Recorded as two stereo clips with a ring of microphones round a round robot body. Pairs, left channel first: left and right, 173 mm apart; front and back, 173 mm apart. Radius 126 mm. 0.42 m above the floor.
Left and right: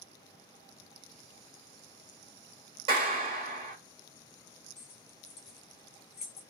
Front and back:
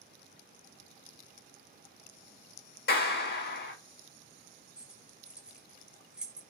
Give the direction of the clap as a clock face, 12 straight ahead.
1 o'clock.